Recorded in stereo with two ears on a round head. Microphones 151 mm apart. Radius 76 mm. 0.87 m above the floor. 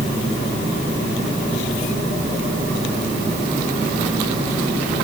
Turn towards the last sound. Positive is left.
No sound to turn to.